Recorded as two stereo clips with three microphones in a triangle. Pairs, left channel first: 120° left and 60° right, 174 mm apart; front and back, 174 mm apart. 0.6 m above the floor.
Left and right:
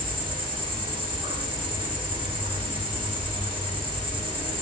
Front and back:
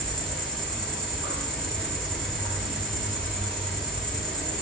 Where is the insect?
85° right, 1.0 m.